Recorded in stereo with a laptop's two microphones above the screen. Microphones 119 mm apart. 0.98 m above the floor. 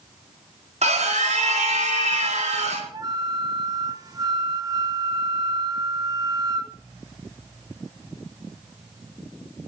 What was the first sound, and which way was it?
A scream, 70° right (ahead or behind).